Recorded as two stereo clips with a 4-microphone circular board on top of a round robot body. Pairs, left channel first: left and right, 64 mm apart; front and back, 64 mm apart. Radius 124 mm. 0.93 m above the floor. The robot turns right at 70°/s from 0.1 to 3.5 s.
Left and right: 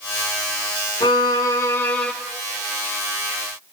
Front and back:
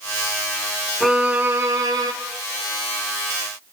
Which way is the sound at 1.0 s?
90° left.